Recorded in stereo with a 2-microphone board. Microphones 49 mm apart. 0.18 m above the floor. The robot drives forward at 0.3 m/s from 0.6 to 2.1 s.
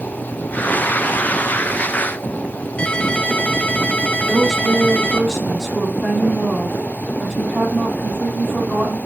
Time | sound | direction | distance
2.8 | a ringtone | 25° left (ahead or behind) | 0.6 m
4.2 | a woman speaking | 5° left (ahead or behind) | 5 m